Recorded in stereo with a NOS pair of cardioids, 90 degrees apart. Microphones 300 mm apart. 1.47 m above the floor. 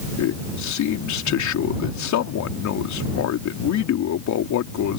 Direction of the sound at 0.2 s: 65° left.